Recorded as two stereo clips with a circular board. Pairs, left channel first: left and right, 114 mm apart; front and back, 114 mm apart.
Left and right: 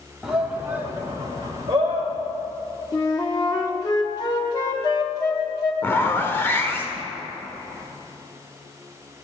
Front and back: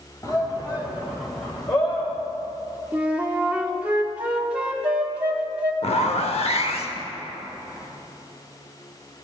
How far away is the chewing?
No chewing in this recording.